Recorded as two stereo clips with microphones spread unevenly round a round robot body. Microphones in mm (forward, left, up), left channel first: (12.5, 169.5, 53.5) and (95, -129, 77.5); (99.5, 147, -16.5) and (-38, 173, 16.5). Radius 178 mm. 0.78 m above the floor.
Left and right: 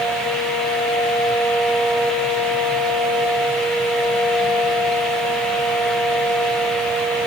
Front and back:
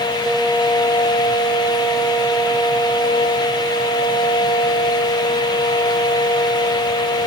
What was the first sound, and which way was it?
Only background noise.